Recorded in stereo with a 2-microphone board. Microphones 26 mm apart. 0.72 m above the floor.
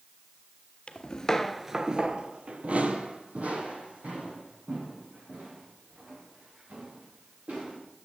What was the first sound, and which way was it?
Footsteps, 40° left (ahead or behind).